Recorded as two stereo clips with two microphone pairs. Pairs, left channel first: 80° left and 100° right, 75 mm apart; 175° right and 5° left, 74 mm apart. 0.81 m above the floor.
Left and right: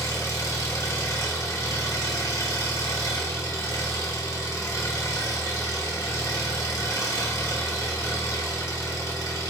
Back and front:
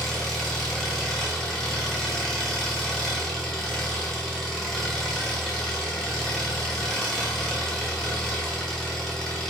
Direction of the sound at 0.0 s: 105° left.